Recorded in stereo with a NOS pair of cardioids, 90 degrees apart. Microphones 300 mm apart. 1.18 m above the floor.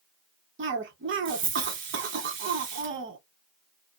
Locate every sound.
0.6 s a cough: 45° right, 1.0 m